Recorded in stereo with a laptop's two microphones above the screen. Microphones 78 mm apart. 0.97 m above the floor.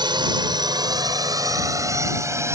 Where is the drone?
70° right (ahead or behind); by 2.5 s 35° right (ahead or behind).